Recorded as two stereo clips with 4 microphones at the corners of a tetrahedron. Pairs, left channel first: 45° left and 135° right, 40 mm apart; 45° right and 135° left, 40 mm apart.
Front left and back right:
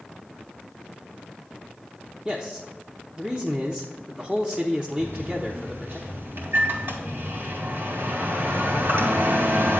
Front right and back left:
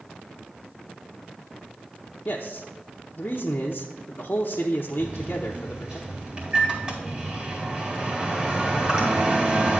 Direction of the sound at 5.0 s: 165° right.